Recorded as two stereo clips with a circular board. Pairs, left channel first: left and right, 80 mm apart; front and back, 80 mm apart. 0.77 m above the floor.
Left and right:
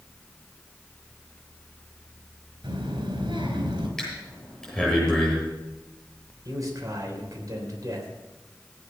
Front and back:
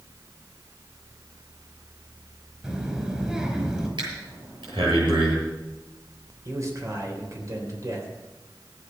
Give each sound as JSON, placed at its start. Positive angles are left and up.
{"t": 2.6, "sound": "a child speaking", "azimuth_deg": -100, "distance_m": 4.0}
{"t": 4.0, "sound": "breathing", "azimuth_deg": 175, "distance_m": 8.0}
{"t": 6.5, "sound": "a man speaking", "azimuth_deg": -135, "distance_m": 3.5}